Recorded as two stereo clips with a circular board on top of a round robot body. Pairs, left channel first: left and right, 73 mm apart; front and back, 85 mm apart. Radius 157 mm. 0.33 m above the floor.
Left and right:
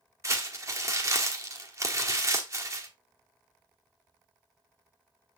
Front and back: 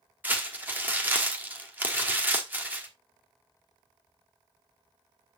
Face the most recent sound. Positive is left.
turn(degrees=-120)